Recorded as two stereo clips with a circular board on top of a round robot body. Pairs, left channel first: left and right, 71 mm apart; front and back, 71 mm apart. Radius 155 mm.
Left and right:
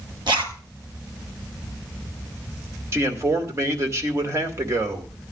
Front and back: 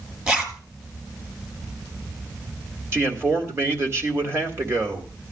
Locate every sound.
0.3 s a zipper: 110° right, 1.8 m
2.9 s a man speaking: 135° right, 2 m